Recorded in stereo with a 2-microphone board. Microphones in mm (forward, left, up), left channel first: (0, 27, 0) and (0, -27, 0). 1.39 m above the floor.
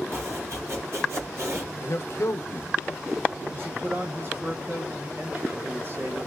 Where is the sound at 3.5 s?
40° right (ahead or behind), 1.1 m.